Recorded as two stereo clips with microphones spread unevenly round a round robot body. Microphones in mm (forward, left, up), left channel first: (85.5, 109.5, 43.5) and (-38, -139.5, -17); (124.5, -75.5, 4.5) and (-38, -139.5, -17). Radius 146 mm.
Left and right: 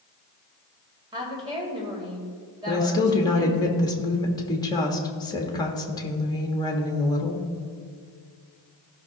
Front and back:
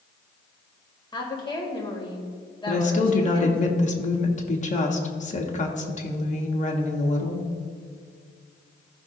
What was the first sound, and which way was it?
A woman speaking, 45° right.